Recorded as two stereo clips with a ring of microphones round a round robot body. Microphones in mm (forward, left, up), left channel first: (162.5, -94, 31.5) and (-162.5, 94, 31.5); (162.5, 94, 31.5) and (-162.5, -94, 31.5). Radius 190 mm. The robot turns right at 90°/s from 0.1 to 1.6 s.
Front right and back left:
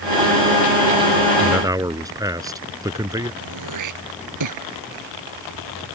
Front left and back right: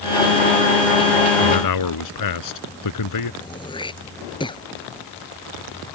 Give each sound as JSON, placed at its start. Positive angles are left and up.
{"t": 1.4, "sound": "a man speaking", "azimuth_deg": 50}
{"t": 3.4, "sound": "throat clearing", "azimuth_deg": 110}